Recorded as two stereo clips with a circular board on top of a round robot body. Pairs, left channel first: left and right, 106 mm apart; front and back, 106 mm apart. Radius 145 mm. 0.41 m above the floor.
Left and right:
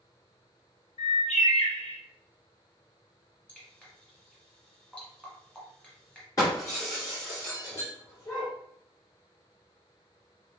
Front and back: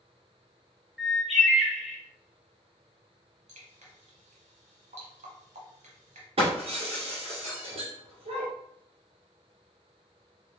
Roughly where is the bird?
Left.